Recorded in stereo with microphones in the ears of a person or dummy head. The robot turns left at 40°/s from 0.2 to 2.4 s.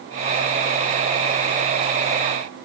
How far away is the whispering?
No whispering in this recording.